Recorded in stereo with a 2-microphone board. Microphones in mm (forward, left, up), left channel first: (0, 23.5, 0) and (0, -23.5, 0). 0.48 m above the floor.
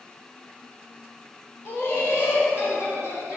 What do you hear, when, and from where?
1.6 s laughter: 50° left (ahead or behind), 1.5 m; by 3.4 s 65° left (ahead or behind), 2.5 m